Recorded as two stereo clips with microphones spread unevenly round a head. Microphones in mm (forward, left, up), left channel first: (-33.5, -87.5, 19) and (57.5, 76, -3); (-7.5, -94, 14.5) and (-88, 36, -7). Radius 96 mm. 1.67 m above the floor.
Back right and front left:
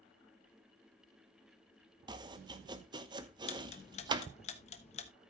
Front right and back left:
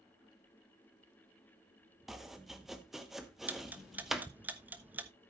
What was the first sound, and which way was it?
Chopping, 15° left.